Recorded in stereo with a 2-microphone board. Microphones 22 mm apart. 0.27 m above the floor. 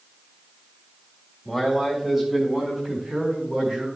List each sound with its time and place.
1.4 s a man speaking: 5° right (ahead or behind), 1.9 m; by 3.9 s 40° right (ahead or behind), 4 m